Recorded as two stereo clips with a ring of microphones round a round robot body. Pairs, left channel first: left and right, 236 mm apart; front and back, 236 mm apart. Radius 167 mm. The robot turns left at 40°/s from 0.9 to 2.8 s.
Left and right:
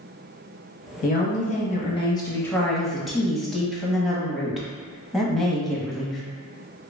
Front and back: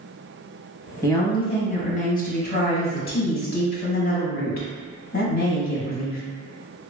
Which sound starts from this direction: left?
A woman speaking, at 1.0 s.